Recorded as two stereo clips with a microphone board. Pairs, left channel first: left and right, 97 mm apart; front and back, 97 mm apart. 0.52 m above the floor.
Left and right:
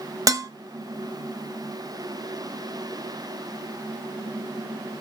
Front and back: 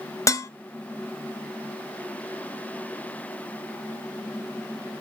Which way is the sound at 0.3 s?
45° right.